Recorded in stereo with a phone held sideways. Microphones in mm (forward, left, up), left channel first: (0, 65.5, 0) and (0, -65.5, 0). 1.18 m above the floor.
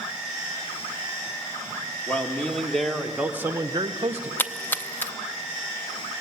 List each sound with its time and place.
2.1 s a man speaking: 10° left (ahead or behind), 2.0 m; by 4.3 s 55° right (ahead or behind), 0.8 m
4.4 s a splash: 15° left (ahead or behind), 0.6 m